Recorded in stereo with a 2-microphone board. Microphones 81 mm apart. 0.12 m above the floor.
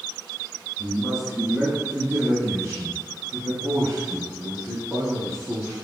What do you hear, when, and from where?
0.8 s a man speaking: 5° left (ahead or behind), 1.6 m; by 5.7 s 50° right (ahead or behind), 3.5 m